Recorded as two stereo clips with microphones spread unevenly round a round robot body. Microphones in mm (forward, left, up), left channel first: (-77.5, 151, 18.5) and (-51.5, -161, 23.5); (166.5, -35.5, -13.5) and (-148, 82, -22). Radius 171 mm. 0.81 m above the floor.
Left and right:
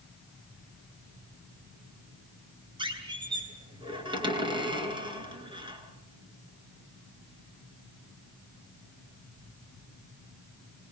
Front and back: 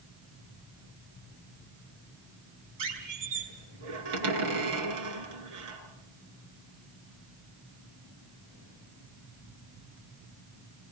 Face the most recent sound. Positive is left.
turn(degrees=-160)